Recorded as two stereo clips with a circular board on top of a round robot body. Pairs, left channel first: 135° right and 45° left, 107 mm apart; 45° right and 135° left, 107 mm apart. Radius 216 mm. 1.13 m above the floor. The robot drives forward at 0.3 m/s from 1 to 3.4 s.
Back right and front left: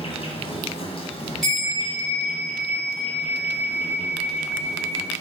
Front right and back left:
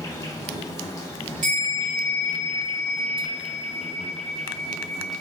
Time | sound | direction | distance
0.0 | an insect | 100° right | 1.1 m
1.4 | a bell | 135° left | 0.9 m